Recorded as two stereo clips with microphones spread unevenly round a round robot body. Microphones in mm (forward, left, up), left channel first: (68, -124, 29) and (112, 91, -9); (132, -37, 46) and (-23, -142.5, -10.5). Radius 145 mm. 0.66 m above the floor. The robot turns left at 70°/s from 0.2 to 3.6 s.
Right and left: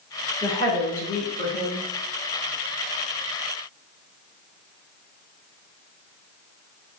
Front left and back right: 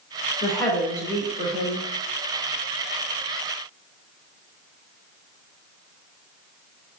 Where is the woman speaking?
35° right, 2.5 m; by 1.9 s 140° right, 2.5 m.